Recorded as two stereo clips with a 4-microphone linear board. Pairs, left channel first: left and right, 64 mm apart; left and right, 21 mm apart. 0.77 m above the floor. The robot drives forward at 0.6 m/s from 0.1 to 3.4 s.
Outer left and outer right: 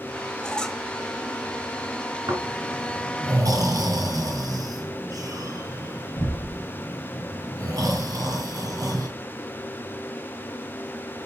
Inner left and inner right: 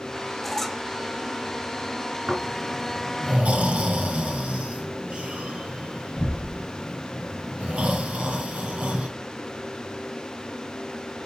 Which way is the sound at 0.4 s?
10° left (ahead or behind).